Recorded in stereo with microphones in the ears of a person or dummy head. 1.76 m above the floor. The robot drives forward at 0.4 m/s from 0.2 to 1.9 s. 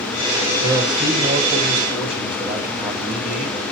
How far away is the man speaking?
About 1.5 m.